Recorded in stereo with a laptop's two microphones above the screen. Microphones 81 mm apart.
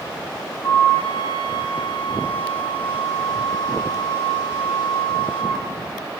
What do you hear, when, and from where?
0.6 s a flute: 55° left (ahead or behind), 1.7 m